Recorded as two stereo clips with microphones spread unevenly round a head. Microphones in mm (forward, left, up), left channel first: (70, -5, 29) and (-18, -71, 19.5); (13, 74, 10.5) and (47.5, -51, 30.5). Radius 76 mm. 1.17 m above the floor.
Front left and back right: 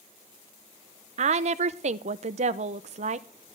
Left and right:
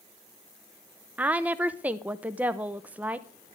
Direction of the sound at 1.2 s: 160° right.